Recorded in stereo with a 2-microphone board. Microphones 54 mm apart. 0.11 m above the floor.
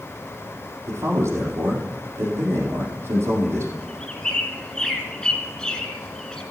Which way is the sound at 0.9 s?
50° right (ahead or behind).